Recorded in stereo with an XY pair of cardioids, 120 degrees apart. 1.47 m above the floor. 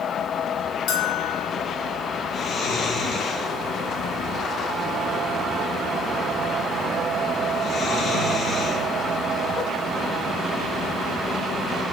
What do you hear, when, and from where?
0.9 s a bell: 70° left, 1.0 m
2.3 s snoring: 45° left, 1.8 m